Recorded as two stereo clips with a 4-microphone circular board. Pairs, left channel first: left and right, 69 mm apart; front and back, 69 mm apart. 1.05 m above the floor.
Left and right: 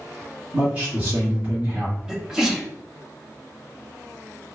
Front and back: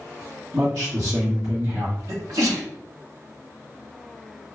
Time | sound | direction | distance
0.5 | a man speaking | 140° right | 1.7 m
2.1 | a sneeze | 170° right | 1.0 m